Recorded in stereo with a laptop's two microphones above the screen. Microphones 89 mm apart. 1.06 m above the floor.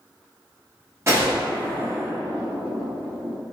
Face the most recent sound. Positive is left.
turn(degrees=-30)  # may be behind; listen again after turning